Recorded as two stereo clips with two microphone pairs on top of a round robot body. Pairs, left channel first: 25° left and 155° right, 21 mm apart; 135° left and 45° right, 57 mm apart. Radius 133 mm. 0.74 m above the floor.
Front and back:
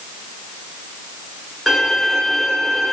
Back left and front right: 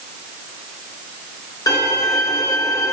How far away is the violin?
About 0.7 m.